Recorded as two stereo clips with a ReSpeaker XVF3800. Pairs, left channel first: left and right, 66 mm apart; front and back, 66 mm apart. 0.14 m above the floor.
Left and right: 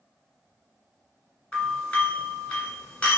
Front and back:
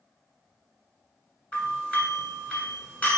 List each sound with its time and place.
1.5 s a doorbell: 30° left, 1.5 m